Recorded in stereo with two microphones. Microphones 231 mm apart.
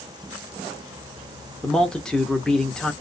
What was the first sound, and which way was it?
A man speaking, 5° left (ahead or behind).